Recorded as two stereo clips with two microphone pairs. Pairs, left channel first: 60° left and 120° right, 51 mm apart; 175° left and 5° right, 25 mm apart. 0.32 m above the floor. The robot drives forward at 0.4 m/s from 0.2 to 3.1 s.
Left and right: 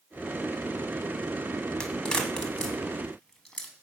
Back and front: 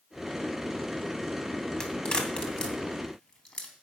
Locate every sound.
1.8 s a crack: 125° left, 2.5 m; by 3.7 s 135° left, 3 m